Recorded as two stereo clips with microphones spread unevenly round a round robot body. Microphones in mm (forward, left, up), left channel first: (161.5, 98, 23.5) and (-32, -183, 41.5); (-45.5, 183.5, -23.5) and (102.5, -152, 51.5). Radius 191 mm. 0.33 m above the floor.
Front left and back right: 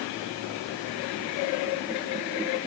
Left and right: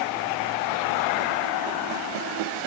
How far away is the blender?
No blender in this recording.